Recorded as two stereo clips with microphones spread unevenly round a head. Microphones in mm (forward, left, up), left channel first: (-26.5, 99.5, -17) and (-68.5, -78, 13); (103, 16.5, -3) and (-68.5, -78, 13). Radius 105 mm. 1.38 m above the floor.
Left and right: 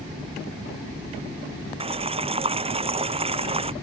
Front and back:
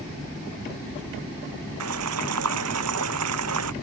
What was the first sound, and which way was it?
Boiling, 160° right.